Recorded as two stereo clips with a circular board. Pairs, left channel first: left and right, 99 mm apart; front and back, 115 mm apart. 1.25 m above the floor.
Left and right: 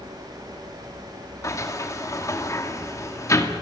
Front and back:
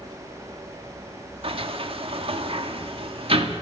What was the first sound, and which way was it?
A sliding door, 145° left.